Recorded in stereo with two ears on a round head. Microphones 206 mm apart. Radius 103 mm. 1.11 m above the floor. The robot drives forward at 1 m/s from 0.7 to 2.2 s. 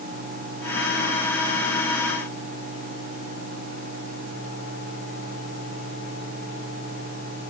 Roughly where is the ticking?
I don't hear ticking.